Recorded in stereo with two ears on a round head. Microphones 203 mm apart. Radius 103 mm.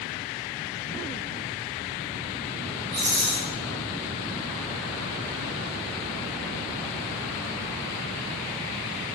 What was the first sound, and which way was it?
A rattle, 35° right (ahead or behind).